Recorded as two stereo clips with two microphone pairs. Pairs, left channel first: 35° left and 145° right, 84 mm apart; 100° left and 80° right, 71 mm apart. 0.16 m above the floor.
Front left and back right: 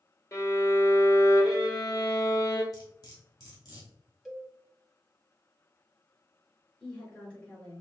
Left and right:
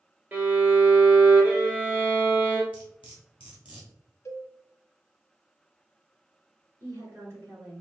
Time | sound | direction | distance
0.3 | a violin | 15° right | 1.6 m
2.7 | cutlery clinking | 5° right | 2.5 m
4.2 | a cowbell | 135° left | 0.9 m
6.8 | a woman speaking | 40° right | 2.5 m